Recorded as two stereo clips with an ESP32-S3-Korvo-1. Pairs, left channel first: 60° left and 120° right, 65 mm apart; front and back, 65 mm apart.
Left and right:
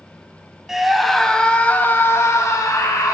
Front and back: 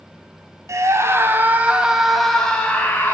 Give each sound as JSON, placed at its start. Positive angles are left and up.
{"t": 0.7, "sound": "a scream", "azimuth_deg": 160, "distance_m": 2.0}